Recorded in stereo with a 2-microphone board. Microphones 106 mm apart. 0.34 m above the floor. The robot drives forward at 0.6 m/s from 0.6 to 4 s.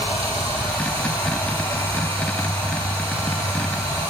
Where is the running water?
70° right (ahead or behind), 6.5 m; by 4.1 s 80° right, 6 m.